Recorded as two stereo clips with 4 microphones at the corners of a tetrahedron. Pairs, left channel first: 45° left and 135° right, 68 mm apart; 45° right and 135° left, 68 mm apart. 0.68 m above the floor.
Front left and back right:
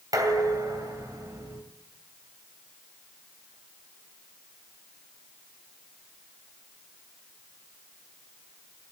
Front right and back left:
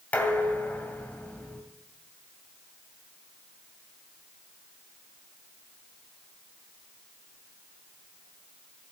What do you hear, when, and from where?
0.1 s dishes clattering: 115° right, 2.5 m